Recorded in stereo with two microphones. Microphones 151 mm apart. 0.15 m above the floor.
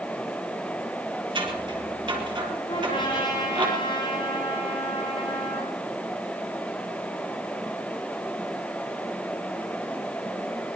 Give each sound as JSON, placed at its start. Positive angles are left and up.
{"t": 1.4, "sound": "scissors", "side_deg": -35, "distance_m": 4.5}
{"t": 2.7, "sound": "a trumpet", "side_deg": 35, "distance_m": 8.0}